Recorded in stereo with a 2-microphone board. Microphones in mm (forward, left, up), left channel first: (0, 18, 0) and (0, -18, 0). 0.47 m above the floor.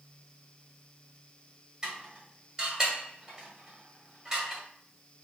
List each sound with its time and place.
1.8 s dishes clattering: 20° right (ahead or behind), 1.5 m